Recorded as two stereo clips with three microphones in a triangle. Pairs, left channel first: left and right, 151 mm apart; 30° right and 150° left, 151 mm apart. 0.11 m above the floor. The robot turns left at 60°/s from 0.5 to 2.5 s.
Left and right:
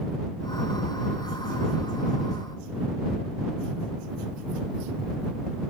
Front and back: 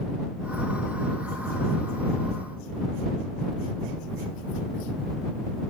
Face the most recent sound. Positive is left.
No sound to turn to.